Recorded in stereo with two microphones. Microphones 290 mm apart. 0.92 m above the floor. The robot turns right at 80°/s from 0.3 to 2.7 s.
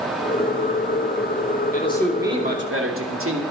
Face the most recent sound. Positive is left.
turn(degrees=-130)